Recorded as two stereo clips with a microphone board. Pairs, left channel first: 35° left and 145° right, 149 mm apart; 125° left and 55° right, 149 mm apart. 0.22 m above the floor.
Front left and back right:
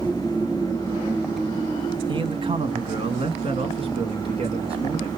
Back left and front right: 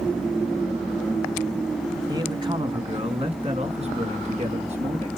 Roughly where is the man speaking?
Right.